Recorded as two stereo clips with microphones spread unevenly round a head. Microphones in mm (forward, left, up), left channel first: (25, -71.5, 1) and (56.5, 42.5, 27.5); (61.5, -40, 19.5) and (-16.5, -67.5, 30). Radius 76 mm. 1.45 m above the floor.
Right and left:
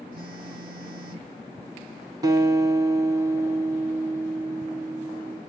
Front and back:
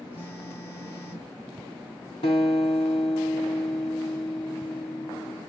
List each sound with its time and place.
0.1 s a phone buzzing: 90° left, 4 m
2.2 s a guitar: 35° left, 2.5 m